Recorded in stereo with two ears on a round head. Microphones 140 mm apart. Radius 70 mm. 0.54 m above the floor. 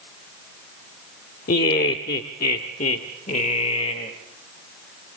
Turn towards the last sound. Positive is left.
turn(degrees=35)  # may be behind; listen again after turning